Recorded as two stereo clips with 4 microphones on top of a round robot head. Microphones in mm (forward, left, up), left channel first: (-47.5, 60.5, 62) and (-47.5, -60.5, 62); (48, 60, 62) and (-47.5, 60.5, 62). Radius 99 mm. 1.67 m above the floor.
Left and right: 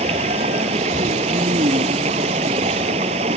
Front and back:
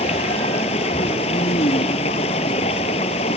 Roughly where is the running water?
Ahead right.